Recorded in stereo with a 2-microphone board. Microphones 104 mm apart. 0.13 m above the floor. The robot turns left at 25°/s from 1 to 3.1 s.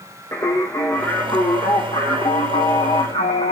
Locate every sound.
0.3 s singing: 150° left, 0.7 m; by 3.5 s 100° left, 0.7 m